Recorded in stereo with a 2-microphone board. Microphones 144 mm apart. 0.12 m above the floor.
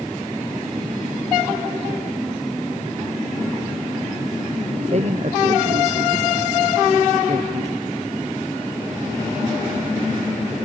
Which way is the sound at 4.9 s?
50° right (ahead or behind).